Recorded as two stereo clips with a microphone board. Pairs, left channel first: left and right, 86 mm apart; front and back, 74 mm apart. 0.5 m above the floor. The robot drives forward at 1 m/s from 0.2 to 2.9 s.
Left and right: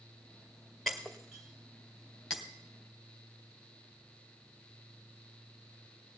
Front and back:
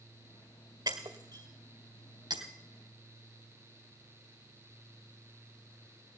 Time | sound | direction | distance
0.9 | breaking glass | 175° left | 1.8 m